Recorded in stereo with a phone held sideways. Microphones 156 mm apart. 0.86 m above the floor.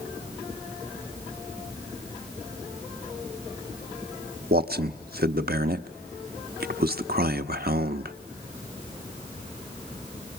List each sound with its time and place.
4.5 s a man speaking: 75° right (ahead or behind), 1.0 m